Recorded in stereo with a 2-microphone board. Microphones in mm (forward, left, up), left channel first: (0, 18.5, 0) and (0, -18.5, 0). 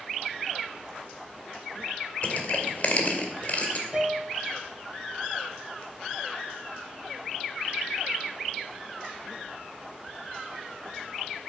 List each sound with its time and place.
2.2 s crushing: 45° left (ahead or behind), 2 m
3.9 s a piano: 25° right (ahead or behind), 2.5 m